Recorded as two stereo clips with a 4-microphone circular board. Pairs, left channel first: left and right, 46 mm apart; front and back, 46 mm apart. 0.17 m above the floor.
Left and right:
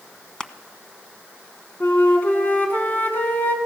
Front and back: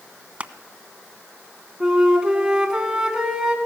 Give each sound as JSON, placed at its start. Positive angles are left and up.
{"t": 0.4, "sound": "crushing", "azimuth_deg": 145, "distance_m": 0.8}
{"t": 1.8, "sound": "a flute", "azimuth_deg": 115, "distance_m": 1.9}